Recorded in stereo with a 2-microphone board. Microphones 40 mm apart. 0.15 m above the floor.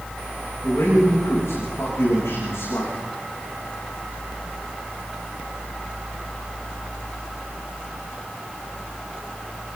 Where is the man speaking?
85° left, 10 m.